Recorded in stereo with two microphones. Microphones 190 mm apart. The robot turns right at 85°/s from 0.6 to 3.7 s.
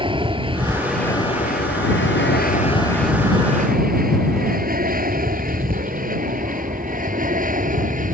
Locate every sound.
0.0 s an aircraft: 25° right (ahead or behind); by 8.1 s 45° right (ahead or behind)